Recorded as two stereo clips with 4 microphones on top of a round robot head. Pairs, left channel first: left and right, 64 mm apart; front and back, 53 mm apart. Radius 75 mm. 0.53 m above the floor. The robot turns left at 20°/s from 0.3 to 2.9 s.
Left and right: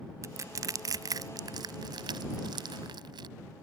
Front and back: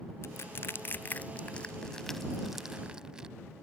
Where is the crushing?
50° right; by 3.3 s 100° right.